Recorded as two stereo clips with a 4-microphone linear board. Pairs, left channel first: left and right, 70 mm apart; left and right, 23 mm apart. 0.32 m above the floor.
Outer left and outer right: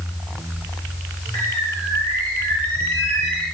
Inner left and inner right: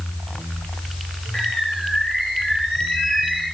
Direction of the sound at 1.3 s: 90° left.